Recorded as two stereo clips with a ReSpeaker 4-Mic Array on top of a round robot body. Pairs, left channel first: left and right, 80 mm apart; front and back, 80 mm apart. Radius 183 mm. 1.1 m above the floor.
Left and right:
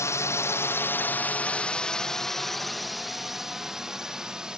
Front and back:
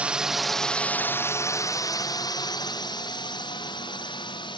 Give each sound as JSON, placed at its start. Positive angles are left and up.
{"t": 0.0, "sound": "a drone", "azimuth_deg": 115}